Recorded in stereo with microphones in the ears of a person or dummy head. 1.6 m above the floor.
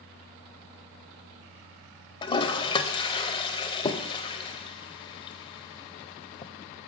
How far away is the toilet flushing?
About 0.5 m.